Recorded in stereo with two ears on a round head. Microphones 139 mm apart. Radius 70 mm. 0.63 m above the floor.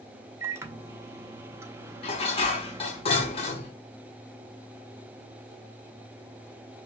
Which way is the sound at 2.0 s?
40° left (ahead or behind).